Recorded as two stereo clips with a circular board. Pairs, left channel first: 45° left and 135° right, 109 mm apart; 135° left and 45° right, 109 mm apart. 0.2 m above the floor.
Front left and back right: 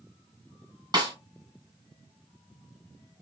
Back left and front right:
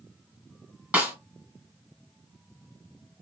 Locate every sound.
0.9 s a snare drum: 115° right, 1.7 m